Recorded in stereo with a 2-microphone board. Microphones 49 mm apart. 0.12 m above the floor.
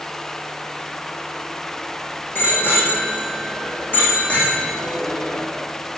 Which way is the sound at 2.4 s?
50° left (ahead or behind).